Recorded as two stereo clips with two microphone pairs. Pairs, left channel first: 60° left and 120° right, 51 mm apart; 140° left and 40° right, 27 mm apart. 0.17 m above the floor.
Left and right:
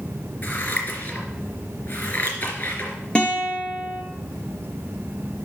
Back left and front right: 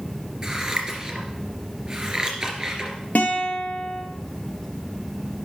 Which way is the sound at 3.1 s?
125° left.